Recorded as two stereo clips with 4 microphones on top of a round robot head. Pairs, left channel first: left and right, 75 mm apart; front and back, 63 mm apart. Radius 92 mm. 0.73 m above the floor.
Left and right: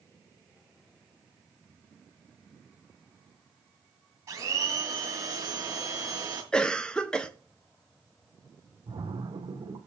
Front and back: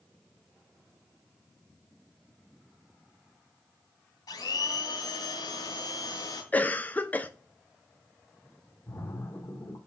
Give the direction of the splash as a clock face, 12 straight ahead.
2 o'clock.